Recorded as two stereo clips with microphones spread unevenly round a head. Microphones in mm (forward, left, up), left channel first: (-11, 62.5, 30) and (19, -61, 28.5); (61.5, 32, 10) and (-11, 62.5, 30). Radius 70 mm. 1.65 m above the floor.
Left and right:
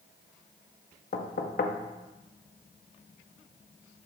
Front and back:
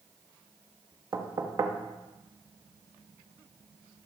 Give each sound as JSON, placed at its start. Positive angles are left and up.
{"t": 1.1, "sound": "knocking", "azimuth_deg": 125, "distance_m": 0.6}